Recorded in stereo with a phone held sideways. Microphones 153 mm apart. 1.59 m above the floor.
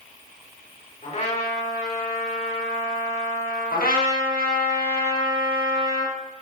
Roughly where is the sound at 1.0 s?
Left.